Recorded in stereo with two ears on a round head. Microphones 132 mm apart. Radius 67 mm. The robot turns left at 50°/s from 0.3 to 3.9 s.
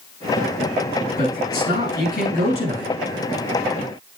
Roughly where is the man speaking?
Behind left.